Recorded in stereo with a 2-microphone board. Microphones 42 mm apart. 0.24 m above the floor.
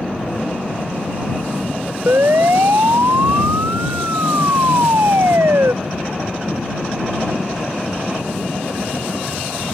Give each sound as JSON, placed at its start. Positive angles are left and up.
{"t": 2.1, "sound": "a siren", "side_deg": -75}